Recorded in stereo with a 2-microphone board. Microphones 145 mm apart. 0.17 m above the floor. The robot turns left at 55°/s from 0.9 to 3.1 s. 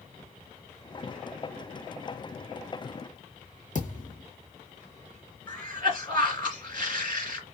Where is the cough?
35° left (ahead or behind), 2.5 m.